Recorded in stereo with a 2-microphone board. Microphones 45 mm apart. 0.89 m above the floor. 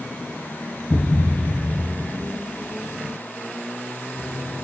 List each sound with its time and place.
0.9 s a thud: 20° left (ahead or behind), 0.9 m